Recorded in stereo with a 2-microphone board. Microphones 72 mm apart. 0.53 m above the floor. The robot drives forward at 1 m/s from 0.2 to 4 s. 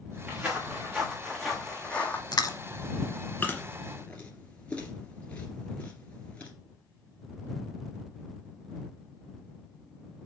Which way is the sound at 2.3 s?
65° left (ahead or behind).